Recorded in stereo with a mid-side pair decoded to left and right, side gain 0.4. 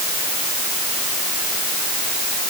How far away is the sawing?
I don't hear sawing.